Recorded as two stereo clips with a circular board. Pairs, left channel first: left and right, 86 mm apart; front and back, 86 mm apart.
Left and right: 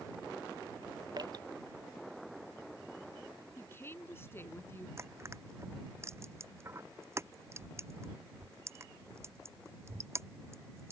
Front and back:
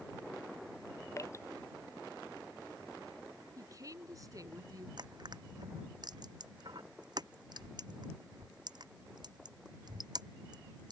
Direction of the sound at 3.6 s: 145° left.